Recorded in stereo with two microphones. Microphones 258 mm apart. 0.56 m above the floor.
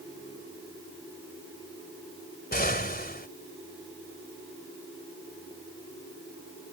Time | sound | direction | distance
2.5 | an explosion | 40° left (ahead or behind) | ?